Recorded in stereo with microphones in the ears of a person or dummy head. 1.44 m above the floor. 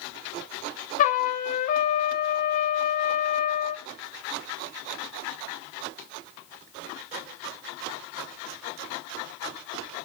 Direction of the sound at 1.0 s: 50° left (ahead or behind).